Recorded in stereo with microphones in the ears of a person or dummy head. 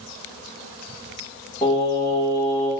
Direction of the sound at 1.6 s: 10° left (ahead or behind).